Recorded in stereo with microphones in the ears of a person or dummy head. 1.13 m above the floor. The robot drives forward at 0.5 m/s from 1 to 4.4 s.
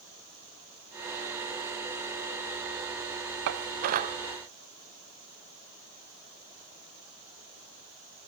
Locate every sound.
3.5 s dishes clattering: 65° right (ahead or behind), 0.5 m; by 4.2 s 40° right (ahead or behind), 0.7 m